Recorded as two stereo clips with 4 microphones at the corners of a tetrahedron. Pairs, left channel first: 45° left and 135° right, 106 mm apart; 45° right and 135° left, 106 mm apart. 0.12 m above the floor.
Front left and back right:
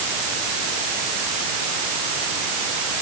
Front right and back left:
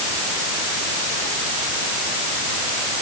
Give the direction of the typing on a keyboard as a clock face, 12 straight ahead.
I don't hear typing on a keyboard.